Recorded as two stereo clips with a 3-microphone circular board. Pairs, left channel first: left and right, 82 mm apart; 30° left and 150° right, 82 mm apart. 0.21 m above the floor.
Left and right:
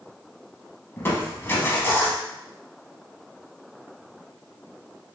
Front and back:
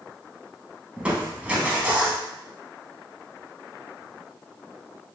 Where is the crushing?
140° left, 0.7 m.